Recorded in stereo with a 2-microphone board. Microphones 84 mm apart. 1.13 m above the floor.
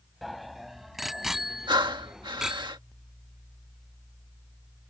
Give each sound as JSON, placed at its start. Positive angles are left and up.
{"t": 0.2, "sound": "a bicycle bell", "side_deg": 0}
{"t": 1.7, "sound": "breathing", "side_deg": -65}